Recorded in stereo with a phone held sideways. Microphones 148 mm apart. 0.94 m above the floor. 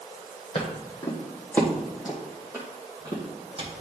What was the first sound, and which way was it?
Footsteps, 35° left (ahead or behind).